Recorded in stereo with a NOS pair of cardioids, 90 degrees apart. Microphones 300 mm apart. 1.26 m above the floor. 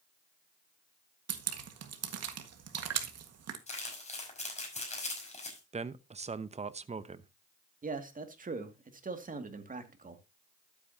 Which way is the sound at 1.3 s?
55° right.